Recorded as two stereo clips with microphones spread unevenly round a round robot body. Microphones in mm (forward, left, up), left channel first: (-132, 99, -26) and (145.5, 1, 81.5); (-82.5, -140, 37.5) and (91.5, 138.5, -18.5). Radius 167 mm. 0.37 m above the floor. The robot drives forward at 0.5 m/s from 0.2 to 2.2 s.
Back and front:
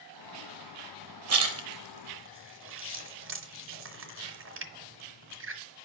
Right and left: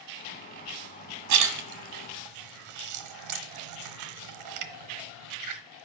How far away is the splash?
About 1.4 m.